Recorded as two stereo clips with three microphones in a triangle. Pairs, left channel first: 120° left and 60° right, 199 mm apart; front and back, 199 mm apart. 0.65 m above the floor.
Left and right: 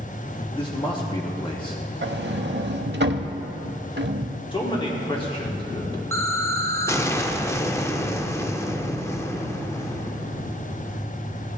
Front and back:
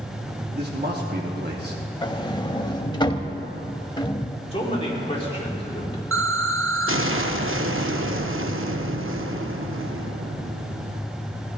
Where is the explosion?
165° right, 0.5 m.